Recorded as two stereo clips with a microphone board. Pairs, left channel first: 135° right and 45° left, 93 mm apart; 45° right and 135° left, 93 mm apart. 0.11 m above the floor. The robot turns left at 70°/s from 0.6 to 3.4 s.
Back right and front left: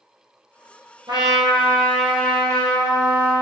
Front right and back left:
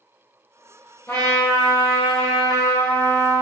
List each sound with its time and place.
1.1 s a trumpet: 20° left, 0.8 m; by 3.4 s 145° right, 0.8 m